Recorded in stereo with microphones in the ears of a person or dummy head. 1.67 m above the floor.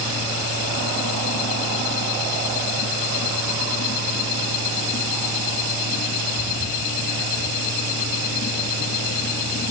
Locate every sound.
Only background noise.